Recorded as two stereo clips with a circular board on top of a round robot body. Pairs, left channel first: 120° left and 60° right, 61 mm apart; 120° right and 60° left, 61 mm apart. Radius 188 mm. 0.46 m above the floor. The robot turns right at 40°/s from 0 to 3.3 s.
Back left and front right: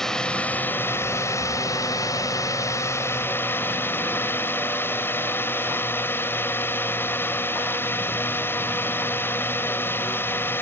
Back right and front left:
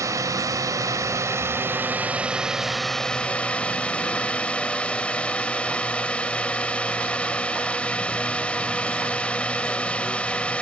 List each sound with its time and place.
0.0 s a drone: 40° left; by 10.6 s 170° left